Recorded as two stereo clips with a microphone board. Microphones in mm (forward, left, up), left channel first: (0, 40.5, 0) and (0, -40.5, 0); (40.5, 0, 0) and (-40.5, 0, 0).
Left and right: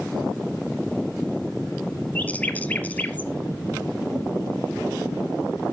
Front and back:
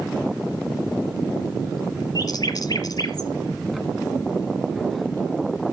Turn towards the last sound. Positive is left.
turn(degrees=25)